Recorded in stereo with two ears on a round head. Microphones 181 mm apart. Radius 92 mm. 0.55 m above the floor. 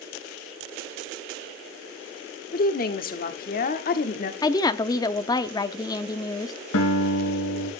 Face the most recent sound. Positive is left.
turn(degrees=85)